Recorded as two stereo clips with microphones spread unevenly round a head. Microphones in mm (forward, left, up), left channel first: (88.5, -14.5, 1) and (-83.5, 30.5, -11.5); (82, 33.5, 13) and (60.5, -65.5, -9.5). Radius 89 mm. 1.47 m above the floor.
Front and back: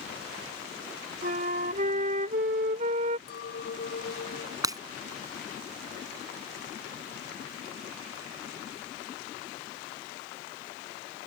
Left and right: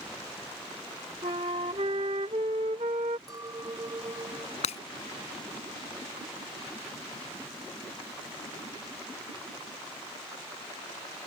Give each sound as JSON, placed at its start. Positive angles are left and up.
{"t": 1.2, "sound": "a flute", "azimuth_deg": -155}
{"t": 3.3, "sound": "a clink", "azimuth_deg": -50}
{"t": 4.6, "sound": "breaking glass", "azimuth_deg": 95}